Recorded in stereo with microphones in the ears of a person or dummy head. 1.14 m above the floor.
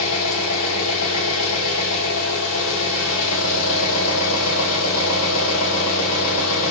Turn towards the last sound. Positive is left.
turn(degrees=85)